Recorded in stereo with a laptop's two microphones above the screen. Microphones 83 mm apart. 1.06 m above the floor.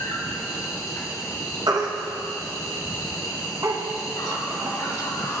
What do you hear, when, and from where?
0.0 s an insect: 45° left (ahead or behind), 1.9 m
1.7 s a baby crying: 55° right (ahead or behind), 0.8 m